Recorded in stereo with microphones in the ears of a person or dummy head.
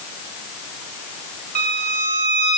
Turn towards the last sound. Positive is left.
turn(degrees=-45)  # may be behind; listen again after turning